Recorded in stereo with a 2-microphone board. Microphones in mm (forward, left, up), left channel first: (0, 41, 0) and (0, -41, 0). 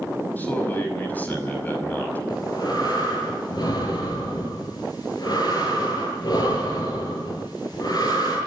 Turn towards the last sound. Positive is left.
turn(degrees=50)  # may be behind; listen again after turning